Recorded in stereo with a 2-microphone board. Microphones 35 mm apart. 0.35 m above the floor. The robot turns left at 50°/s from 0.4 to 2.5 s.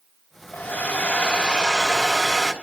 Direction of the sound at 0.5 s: 90° left.